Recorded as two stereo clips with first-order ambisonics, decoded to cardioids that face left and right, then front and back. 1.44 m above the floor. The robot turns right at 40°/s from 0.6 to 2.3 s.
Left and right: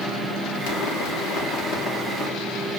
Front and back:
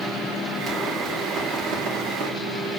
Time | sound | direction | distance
0.7 | a pop | 95° left | 3 m